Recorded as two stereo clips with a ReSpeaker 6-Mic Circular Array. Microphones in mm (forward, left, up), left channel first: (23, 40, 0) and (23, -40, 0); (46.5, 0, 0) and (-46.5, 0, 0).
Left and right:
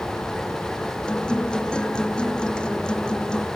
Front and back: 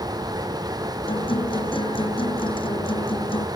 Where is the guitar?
10° left.